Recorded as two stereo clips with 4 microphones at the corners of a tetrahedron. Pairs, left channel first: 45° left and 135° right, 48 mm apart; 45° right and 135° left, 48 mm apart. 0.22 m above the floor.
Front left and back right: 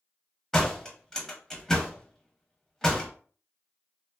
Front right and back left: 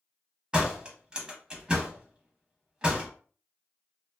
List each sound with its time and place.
0.5 s a door slam: 105° left, 0.7 m